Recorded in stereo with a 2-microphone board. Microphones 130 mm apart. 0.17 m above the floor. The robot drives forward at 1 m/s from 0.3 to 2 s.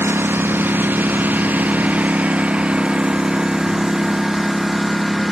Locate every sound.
0.0 s a lawn mower: 15° right (ahead or behind); by 5.3 s centre (ahead or behind)